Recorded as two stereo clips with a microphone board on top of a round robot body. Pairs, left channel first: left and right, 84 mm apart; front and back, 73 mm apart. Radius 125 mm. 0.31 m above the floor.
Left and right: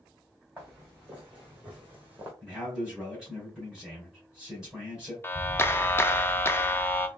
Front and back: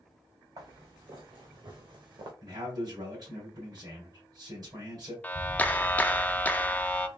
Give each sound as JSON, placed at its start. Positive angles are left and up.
{"t": 0.6, "sound": "footsteps", "azimuth_deg": -165, "distance_m": 2.5}
{"t": 2.4, "sound": "a man speaking", "azimuth_deg": -170, "distance_m": 3.0}
{"t": 5.2, "sound": "a clap", "azimuth_deg": 50, "distance_m": 0.7}